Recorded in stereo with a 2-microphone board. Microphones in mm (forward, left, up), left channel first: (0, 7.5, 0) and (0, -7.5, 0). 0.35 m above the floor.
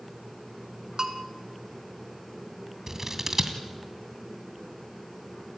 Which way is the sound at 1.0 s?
40° right (ahead or behind).